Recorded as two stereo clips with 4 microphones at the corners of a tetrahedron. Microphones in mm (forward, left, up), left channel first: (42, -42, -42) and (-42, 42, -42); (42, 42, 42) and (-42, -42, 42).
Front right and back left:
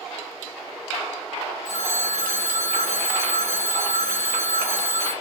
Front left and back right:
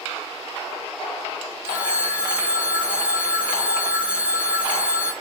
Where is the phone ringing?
55° right, 4.5 m.